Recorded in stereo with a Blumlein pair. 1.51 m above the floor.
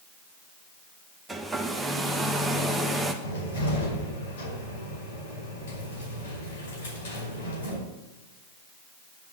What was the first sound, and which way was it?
A hair dryer, 5° right.